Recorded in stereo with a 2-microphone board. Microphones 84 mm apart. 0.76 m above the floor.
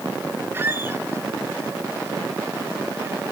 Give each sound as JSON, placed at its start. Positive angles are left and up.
{"t": 0.5, "sound": "a squeak", "side_deg": -30, "distance_m": 1.2}